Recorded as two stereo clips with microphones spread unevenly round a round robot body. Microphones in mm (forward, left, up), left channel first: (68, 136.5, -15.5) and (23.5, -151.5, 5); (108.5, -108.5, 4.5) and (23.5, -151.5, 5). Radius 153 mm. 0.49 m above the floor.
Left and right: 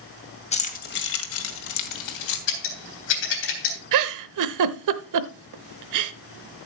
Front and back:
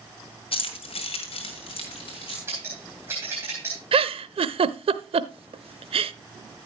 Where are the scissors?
130° left, 3 m.